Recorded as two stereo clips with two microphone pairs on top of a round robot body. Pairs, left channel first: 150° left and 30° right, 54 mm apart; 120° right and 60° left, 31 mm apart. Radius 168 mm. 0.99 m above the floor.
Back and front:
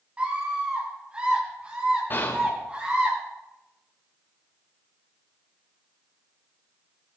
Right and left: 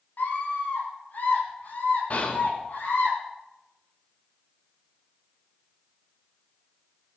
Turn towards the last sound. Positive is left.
turn(degrees=-165)